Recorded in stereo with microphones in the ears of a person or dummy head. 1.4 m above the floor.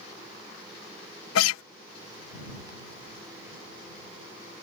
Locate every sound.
1.4 s a guitar: 85° left